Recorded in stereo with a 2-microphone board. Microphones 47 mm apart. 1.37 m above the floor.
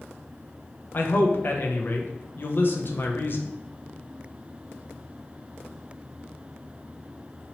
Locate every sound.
0.9 s a man speaking: 50° left (ahead or behind), 0.5 m